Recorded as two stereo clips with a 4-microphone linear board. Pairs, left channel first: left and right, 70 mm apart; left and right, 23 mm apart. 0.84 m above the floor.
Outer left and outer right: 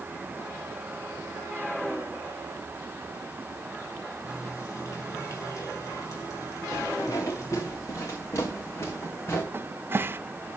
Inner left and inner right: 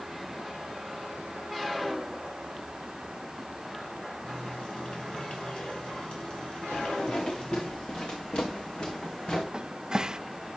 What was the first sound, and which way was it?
A running tap, 45° left (ahead or behind).